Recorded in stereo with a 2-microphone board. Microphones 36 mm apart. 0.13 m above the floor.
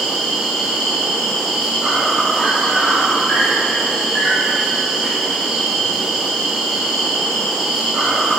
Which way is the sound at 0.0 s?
10° right (ahead or behind).